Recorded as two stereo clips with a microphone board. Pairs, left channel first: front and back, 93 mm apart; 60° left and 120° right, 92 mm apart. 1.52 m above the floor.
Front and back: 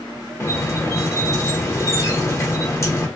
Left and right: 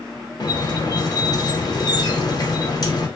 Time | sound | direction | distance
0.4 | a squeak | 45° left | 0.6 m